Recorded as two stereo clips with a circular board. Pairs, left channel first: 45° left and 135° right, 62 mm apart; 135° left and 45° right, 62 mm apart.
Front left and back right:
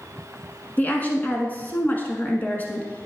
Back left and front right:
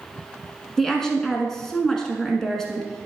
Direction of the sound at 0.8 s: 60° left.